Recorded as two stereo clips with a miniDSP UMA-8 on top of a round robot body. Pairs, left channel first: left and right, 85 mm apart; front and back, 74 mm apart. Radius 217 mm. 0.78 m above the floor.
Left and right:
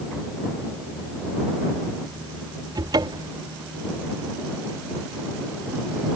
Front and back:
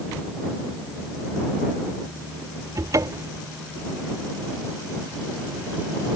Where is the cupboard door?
135° right.